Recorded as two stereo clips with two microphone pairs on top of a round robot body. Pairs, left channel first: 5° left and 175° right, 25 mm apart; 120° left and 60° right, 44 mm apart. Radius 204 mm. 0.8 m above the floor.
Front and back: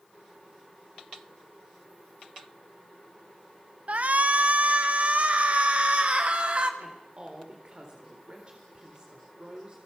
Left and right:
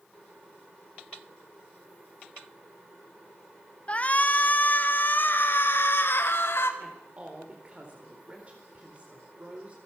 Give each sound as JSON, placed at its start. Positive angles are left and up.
{"t": 3.9, "sound": "a shout", "azimuth_deg": 180, "distance_m": 1.7}
{"t": 6.8, "sound": "a woman speaking", "azimuth_deg": -120, "distance_m": 4.0}